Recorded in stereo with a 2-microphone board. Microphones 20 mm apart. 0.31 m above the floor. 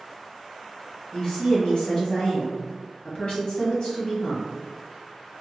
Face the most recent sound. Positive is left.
turn(degrees=55)  # may be behind; listen again after turning